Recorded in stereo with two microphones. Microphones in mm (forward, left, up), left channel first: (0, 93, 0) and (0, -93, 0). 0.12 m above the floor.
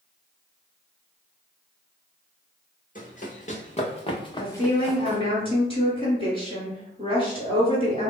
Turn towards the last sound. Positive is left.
turn(degrees=30)  # may be behind; listen again after turning